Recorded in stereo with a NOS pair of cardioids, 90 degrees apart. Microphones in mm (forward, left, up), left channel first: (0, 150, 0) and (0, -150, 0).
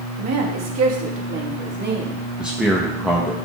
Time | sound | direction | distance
0.2 | a woman speaking | 65° right | 1.8 m
2.4 | a man speaking | 5° right | 1.1 m